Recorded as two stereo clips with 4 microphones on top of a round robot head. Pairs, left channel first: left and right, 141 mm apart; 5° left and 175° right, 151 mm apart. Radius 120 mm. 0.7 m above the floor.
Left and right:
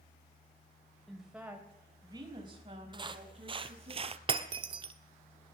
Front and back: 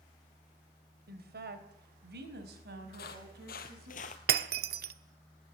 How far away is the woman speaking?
About 3 m.